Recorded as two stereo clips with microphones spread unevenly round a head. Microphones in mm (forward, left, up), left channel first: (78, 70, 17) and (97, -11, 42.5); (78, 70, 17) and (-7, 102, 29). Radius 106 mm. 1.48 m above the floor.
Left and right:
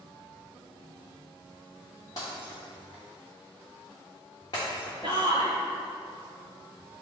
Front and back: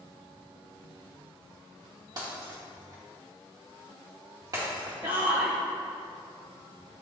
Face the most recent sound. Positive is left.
turn(degrees=-140)